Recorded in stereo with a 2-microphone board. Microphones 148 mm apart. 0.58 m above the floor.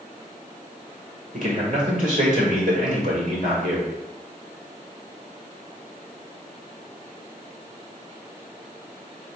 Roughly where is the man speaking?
Right.